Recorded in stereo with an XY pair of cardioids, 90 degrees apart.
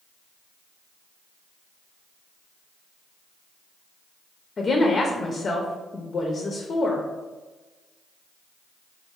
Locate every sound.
4.6 s a woman speaking: 45° left, 0.6 m